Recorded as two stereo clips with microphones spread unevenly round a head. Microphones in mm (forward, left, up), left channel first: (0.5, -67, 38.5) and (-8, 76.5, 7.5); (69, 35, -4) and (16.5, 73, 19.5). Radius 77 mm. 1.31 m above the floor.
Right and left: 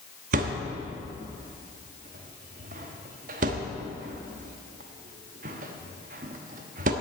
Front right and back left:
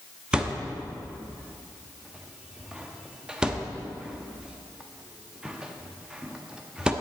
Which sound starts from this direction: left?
A thud, at 0.3 s.